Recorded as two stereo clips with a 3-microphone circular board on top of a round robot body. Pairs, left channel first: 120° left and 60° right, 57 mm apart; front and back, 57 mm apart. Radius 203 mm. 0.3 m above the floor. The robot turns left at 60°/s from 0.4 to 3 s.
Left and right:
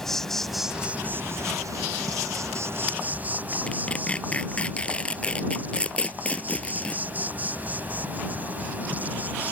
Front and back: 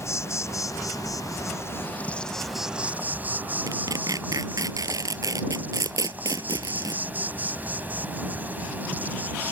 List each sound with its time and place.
0.0 s an insect: 40° left; by 9.5 s 120° right
3.7 s tearing paper: 170° right